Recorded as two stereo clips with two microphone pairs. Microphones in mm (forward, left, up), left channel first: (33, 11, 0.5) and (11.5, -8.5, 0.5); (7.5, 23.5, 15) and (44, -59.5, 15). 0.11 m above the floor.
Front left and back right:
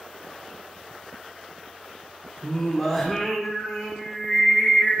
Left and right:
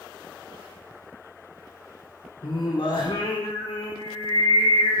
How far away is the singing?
About 6.5 m.